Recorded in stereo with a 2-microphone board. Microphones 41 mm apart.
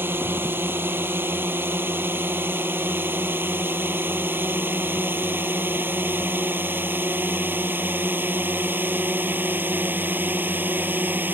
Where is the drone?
65° right (ahead or behind); by 11.3 s 55° right (ahead or behind).